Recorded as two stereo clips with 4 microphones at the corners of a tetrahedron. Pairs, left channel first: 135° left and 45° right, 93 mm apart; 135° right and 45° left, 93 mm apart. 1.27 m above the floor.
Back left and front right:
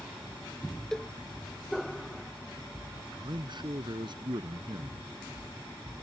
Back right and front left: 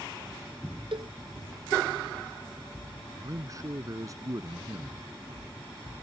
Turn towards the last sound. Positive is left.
turn(degrees=-10)